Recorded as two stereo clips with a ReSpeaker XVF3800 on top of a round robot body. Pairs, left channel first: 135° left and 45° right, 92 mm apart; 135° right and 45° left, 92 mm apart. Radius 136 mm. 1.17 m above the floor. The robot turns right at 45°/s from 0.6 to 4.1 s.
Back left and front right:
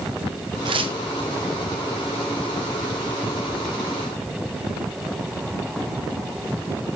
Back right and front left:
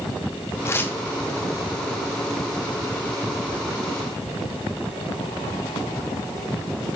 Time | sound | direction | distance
0.7 | tearing paper | 75° right | 1.1 m